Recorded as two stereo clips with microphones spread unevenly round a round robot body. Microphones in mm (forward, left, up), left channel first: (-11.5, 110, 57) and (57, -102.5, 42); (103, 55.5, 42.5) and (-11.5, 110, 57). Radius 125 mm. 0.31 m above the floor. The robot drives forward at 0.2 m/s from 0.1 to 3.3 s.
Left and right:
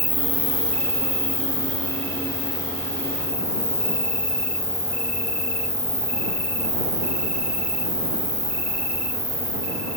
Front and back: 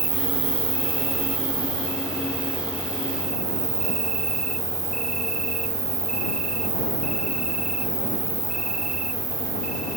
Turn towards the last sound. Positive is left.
turn(degrees=-175)